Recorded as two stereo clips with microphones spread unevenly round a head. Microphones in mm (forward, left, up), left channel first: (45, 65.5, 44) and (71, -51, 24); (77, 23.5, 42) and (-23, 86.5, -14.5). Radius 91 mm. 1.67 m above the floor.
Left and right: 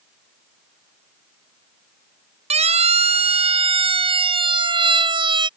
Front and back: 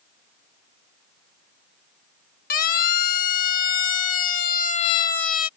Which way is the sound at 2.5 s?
45° right.